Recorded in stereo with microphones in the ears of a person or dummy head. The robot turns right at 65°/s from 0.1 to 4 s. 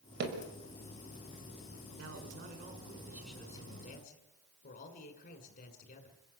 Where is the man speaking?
85° right, 6.5 m; by 6.2 s 45° left, 6.5 m.